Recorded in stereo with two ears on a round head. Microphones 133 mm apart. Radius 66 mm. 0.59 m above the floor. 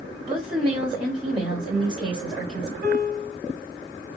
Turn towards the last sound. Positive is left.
turn(degrees=-80)